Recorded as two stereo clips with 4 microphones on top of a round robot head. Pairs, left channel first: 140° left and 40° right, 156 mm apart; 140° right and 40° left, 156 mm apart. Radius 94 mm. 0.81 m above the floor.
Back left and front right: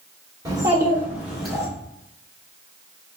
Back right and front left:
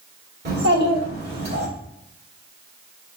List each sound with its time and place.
0.5 s a child speaking: 25° left, 1.9 m; by 1.7 s 50° left, 2.5 m